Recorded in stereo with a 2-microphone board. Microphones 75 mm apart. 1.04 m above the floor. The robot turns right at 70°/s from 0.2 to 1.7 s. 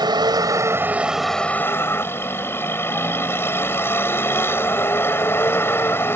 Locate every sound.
0.0 s a vehicle: 75° right; by 6.2 s 30° left